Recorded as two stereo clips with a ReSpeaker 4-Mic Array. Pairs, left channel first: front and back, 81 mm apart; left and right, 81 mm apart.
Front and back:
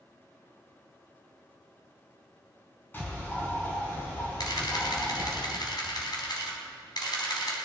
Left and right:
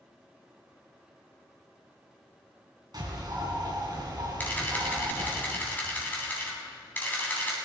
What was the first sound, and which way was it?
A bird, 65° right.